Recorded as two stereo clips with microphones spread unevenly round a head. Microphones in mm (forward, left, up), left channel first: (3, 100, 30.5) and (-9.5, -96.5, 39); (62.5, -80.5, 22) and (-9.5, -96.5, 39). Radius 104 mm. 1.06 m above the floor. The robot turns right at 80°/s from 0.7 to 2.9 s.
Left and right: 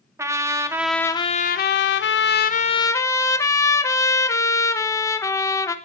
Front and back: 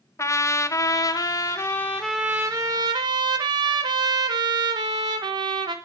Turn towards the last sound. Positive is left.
turn(degrees=160)